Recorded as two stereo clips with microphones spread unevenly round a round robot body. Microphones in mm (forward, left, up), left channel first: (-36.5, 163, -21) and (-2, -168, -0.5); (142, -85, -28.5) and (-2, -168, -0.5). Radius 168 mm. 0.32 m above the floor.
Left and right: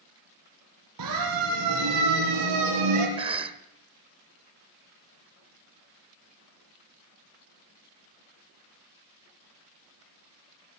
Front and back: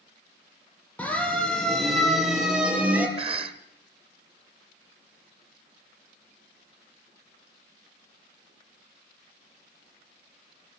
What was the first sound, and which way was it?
A siren, 50° right.